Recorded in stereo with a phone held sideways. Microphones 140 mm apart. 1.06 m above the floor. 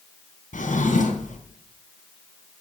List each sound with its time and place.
0.5 s a drawer: 65° left (ahead or behind), 3 m